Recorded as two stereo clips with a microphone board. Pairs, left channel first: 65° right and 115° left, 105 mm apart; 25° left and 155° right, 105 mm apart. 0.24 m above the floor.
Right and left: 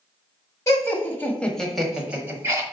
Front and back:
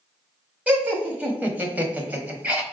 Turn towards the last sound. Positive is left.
turn(degrees=140)